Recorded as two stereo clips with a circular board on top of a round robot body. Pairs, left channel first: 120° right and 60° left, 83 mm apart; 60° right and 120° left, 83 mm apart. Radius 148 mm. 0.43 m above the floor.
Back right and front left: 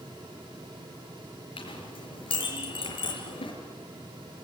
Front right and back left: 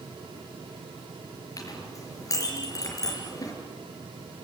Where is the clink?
110° right, 5.5 m.